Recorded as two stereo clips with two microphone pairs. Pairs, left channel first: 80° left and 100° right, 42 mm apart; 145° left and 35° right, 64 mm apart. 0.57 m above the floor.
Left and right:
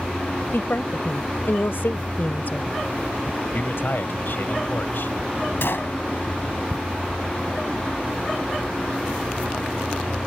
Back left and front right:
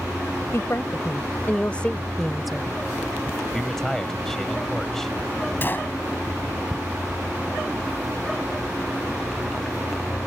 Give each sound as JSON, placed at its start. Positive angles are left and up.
{"t": 0.5, "sound": "a woman speaking", "azimuth_deg": 105}
{"t": 3.5, "sound": "a man speaking", "azimuth_deg": 60}
{"t": 5.6, "sound": "a gunshot", "azimuth_deg": 90}